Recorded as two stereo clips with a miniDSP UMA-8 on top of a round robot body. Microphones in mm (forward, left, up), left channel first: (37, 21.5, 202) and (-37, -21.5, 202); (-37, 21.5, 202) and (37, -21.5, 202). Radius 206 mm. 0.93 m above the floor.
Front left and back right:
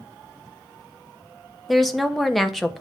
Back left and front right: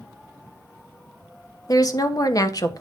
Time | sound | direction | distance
1.7 | a woman speaking | 120° left | 1.2 m